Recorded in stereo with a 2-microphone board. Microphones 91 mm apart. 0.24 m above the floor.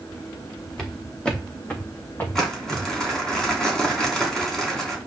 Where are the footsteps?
5° left (ahead or behind), 3 m; by 2.9 s 30° left (ahead or behind), 2.5 m.